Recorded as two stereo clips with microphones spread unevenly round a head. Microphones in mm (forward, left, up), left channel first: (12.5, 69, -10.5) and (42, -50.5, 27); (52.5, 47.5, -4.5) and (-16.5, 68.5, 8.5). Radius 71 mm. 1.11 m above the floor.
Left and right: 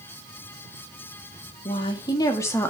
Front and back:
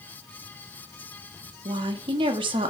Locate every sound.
1.6 s a woman speaking: 160° left, 1.7 m; by 2.7 s straight behind, 1.7 m